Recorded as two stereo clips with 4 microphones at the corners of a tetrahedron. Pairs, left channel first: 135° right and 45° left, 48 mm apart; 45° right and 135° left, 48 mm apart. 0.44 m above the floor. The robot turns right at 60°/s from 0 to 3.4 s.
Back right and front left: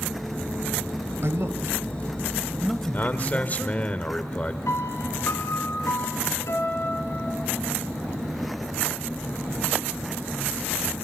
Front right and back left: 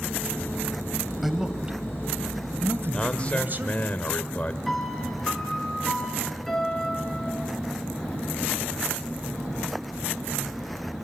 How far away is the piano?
About 4 m.